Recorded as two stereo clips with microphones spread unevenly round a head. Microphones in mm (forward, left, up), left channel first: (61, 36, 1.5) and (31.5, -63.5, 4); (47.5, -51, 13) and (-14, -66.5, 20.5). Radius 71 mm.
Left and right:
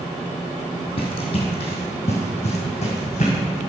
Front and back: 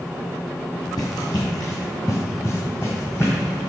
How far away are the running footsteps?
About 2.0 m.